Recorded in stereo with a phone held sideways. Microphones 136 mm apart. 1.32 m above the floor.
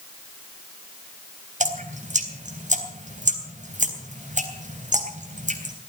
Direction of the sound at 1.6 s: 65° right (ahead or behind).